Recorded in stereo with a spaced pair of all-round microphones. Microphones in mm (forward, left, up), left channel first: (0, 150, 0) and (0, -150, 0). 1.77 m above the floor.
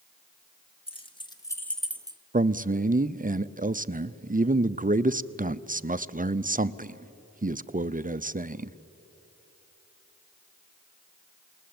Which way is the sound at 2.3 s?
30° right (ahead or behind).